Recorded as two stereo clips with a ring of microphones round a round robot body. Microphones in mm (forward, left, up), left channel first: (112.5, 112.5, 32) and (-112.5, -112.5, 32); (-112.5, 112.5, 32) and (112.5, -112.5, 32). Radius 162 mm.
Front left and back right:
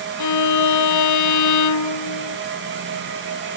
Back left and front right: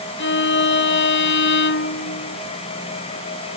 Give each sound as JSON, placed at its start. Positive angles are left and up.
{"t": 0.2, "sound": "a violin", "azimuth_deg": 80}